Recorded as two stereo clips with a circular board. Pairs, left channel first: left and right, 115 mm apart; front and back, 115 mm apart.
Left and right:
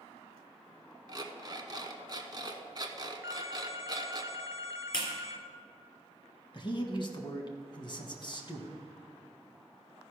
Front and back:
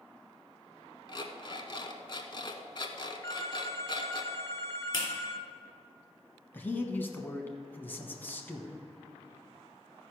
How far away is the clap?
About 2.5 m.